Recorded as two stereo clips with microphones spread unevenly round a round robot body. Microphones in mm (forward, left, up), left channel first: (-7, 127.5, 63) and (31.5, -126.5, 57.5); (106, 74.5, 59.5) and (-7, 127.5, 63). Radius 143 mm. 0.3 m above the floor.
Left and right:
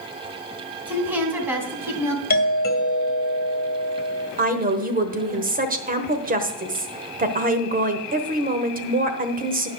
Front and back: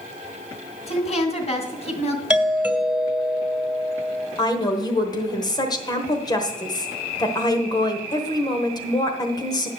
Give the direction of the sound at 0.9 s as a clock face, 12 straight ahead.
12 o'clock.